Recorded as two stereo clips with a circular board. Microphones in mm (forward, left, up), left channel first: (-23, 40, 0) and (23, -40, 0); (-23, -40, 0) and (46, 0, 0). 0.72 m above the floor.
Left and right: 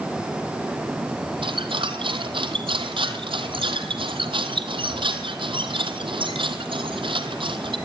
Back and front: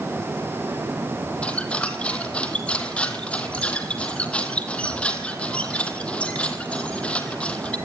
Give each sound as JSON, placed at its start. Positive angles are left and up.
{"t": 1.4, "sound": "a squeak", "azimuth_deg": -75, "distance_m": 2.0}